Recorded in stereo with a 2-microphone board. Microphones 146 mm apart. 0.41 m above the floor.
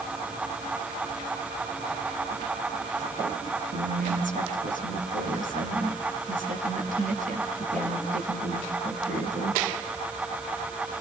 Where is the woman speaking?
65° right (ahead or behind), 4 m.